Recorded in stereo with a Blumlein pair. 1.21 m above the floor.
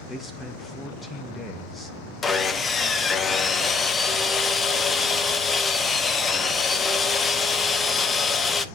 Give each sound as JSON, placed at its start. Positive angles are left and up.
{"t": 0.1, "sound": "a man speaking", "azimuth_deg": 10, "distance_m": 0.7}
{"t": 2.2, "sound": "sawing", "azimuth_deg": 20, "distance_m": 0.6}